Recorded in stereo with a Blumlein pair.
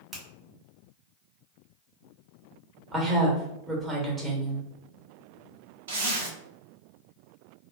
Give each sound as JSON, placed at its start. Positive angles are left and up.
{"t": 0.1, "sound": "a finger snap", "azimuth_deg": -10, "distance_m": 1.8}
{"t": 2.9, "sound": "a woman speaking", "azimuth_deg": -15, "distance_m": 1.7}
{"t": 5.9, "sound": "a zipper", "azimuth_deg": -60, "distance_m": 1.2}